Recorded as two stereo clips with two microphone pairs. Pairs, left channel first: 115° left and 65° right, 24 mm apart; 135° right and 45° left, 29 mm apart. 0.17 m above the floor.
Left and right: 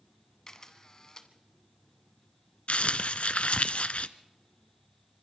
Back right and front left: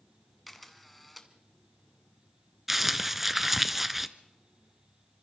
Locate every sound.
0.5 s a camera shutter: 145° left, 1.8 m
2.7 s crumpling: 125° left, 0.8 m